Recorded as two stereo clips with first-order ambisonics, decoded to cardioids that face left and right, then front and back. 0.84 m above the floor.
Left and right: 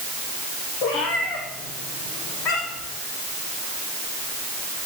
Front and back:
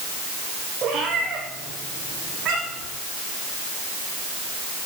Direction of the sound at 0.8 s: 115° left.